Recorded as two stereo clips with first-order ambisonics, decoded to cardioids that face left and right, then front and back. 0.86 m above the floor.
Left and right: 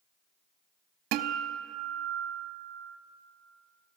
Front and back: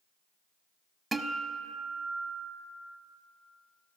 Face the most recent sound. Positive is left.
turn(degrees=-100)